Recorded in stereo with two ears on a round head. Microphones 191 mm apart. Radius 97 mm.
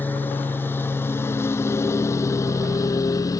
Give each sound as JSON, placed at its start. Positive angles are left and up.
{"t": 0.0, "sound": "a lawn mower", "side_deg": 10}